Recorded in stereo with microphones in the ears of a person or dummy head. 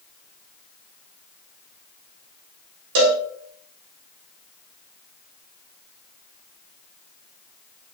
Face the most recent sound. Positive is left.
turn(degrees=-55)  # may be behind; listen again after turning